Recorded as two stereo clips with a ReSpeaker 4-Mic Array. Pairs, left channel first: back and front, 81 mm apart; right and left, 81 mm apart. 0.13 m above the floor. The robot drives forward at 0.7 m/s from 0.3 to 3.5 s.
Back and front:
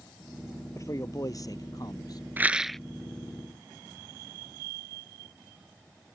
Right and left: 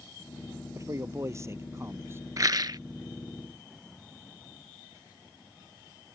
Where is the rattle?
60° left; by 2.8 s 95° left.